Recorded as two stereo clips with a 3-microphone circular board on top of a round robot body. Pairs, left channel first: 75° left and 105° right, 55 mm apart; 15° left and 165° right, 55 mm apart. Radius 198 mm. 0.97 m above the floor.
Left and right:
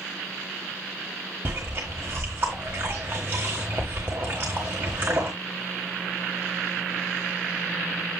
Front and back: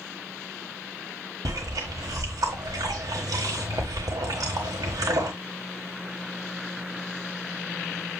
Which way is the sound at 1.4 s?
165° right.